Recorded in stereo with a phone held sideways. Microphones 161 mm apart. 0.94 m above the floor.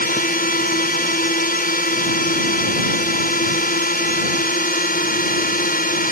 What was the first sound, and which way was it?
A drone, 65° left (ahead or behind).